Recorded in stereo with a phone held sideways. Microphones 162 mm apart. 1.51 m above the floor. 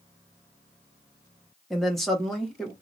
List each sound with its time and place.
1.7 s a woman speaking: centre (ahead or behind), 1.3 m